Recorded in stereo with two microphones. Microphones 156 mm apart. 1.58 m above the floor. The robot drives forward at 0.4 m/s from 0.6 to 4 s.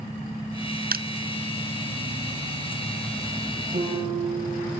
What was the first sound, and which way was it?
Crushing, 75° right (ahead or behind).